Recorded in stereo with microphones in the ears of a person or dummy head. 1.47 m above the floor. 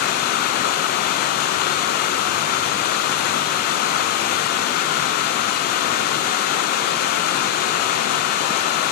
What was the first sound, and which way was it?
Running water, 50° left (ahead or behind).